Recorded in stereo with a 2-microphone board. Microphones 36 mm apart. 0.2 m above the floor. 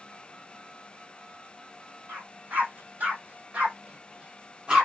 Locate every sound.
2.1 s a dog barking: 50° right (ahead or behind), 3 m; by 4.9 s 20° right (ahead or behind), 2.5 m